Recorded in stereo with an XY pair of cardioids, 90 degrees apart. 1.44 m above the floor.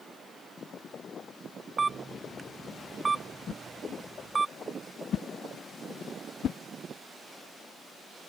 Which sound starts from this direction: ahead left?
A whoosh, at 3.5 s.